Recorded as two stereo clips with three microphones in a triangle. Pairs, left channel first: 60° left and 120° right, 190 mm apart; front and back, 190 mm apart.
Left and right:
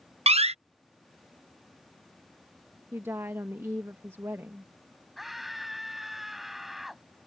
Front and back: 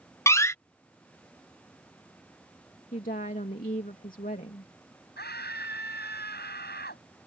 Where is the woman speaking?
45° right.